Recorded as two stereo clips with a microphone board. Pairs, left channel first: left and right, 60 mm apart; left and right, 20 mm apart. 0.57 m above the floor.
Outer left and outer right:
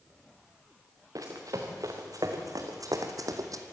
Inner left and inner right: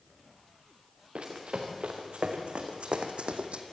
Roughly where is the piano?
I don't hear a piano.